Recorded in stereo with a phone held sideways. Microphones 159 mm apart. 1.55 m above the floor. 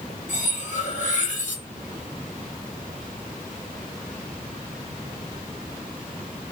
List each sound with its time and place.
0.3 s cutlery clinking: 55° left (ahead or behind), 1.3 m